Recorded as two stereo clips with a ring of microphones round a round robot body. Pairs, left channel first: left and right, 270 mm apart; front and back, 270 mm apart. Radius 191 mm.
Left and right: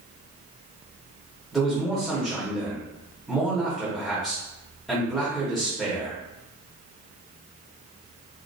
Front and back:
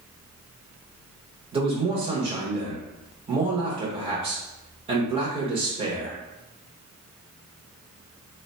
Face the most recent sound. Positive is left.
turn(degrees=180)